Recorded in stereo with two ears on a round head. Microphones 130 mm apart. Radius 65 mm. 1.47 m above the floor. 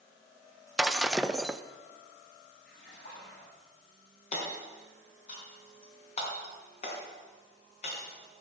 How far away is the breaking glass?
About 0.5 m.